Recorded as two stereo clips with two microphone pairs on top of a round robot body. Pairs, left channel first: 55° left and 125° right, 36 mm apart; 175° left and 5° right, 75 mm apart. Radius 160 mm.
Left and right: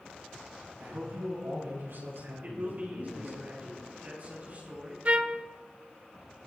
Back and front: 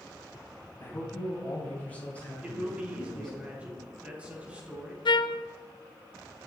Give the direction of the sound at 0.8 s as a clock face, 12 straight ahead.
4 o'clock.